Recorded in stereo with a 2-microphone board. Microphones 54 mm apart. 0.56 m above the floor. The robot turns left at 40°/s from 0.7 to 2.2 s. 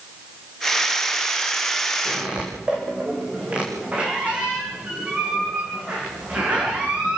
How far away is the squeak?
About 5.5 m.